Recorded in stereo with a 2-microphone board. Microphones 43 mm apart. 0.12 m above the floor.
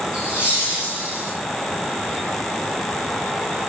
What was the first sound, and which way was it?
Laughter, 30° right (ahead or behind).